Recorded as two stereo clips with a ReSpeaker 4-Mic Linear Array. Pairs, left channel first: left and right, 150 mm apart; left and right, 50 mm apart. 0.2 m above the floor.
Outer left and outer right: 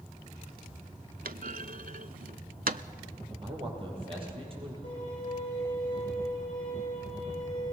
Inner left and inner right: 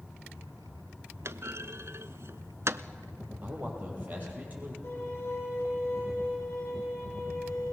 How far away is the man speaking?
About 6.5 m.